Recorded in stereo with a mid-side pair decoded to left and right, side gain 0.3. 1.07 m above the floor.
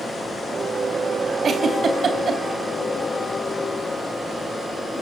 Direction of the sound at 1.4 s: 65° right.